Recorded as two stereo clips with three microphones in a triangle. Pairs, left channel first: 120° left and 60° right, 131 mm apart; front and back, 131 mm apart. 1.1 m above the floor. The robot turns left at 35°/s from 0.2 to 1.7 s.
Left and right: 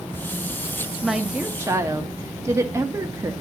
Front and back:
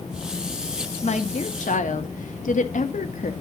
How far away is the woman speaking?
About 1.5 m.